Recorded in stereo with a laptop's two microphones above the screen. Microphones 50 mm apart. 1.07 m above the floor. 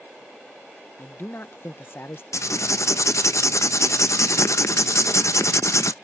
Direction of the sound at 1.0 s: 50° left (ahead or behind).